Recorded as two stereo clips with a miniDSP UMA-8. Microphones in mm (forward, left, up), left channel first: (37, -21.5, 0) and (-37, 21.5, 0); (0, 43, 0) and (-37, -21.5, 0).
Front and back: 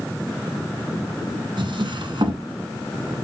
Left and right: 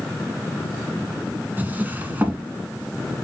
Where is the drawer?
175° left, 1.4 m.